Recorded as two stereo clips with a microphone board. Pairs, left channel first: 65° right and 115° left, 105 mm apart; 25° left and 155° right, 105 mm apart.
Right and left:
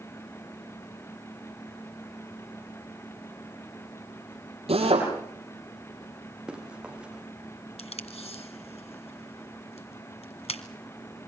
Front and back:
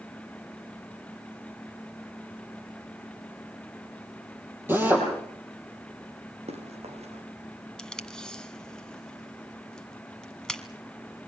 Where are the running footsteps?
165° right, 5 m.